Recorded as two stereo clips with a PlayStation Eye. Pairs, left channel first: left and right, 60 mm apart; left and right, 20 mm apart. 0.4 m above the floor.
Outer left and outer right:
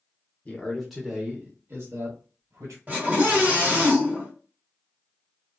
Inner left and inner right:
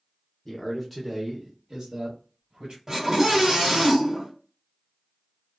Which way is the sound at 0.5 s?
20° left (ahead or behind).